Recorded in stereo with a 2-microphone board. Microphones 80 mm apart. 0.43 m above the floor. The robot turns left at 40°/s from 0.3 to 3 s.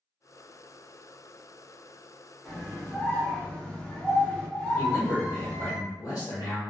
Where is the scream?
10° left (ahead or behind), 0.8 m; by 5.8 s 15° left (ahead or behind), 0.8 m.